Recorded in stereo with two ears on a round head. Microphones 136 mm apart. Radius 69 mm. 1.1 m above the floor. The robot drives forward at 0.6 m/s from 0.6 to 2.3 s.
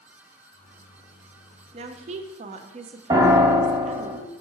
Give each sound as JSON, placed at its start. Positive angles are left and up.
{"t": 1.7, "sound": "a woman speaking", "side_deg": -40, "distance_m": 0.7}
{"t": 3.1, "sound": "a piano", "side_deg": -30, "distance_m": 1.3}